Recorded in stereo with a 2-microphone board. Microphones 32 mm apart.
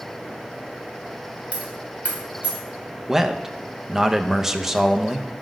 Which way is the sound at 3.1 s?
10° right (ahead or behind).